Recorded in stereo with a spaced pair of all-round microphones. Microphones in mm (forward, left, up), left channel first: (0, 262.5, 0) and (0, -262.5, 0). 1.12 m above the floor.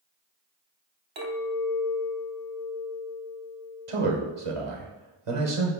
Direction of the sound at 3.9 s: 75° right (ahead or behind).